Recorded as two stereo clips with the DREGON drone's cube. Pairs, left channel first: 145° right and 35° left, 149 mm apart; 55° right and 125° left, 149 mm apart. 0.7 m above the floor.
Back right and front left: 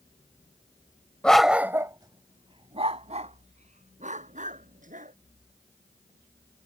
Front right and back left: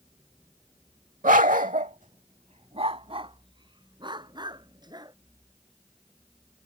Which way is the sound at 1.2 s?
135° left.